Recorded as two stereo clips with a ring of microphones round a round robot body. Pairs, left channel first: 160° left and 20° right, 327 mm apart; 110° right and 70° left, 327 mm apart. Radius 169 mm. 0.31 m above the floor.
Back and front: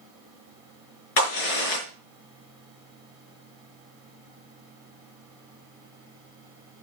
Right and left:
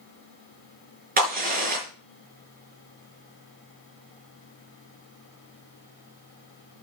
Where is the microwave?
I don't hear a microwave.